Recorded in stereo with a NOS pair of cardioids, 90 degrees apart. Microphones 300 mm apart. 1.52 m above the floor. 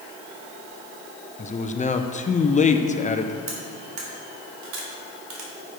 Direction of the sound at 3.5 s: 70° right.